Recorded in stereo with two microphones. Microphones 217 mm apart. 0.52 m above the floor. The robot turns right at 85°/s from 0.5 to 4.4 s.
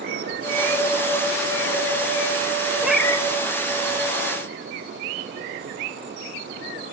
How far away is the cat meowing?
About 1.1 m.